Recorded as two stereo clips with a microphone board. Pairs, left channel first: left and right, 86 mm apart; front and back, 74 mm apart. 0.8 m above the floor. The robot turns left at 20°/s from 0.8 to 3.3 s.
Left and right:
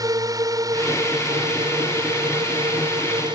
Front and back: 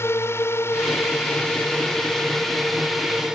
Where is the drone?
50° right; by 3.4 s 100° right.